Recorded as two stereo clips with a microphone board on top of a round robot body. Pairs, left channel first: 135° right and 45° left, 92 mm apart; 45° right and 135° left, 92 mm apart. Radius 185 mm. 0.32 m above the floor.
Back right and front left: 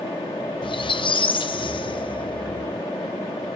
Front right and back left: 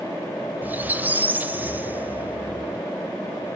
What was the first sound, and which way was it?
A squeak, 155° right.